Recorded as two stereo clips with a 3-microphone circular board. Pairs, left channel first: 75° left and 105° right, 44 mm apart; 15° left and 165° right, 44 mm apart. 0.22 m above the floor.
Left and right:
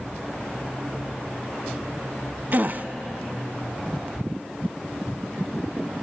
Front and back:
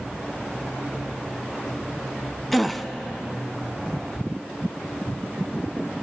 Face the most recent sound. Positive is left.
turn(degrees=-75)